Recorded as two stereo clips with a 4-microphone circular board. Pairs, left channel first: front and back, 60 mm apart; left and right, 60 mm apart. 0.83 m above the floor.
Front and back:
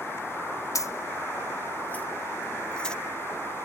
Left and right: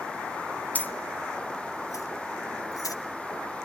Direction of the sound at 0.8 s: 25° left.